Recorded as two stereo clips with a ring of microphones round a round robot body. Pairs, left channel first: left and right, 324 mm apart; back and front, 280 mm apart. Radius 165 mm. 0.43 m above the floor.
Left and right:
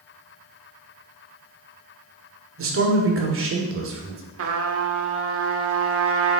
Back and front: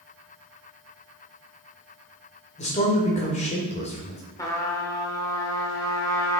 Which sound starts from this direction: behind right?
A man speaking, at 2.6 s.